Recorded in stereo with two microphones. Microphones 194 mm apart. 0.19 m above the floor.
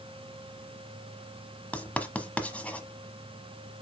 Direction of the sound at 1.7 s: 5° left (ahead or behind).